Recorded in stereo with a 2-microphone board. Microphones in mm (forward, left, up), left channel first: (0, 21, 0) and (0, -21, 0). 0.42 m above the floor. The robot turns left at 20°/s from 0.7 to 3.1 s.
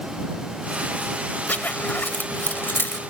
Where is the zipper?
45° left (ahead or behind); by 3.0 s 60° left (ahead or behind).